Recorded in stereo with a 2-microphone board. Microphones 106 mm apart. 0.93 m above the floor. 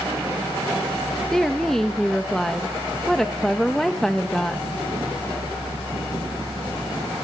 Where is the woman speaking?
5° left (ahead or behind), 1.0 m.